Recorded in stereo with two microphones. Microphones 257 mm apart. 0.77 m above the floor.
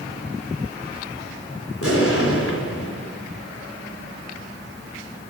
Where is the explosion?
60° left (ahead or behind), 3 m.